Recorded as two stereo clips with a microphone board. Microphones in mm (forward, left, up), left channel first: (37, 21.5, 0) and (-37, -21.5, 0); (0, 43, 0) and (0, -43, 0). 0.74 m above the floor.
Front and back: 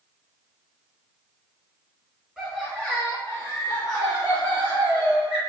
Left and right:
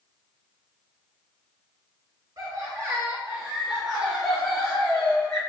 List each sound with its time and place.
2.4 s laughter: 65° right, 1.1 m; by 5.4 s 25° left, 2.0 m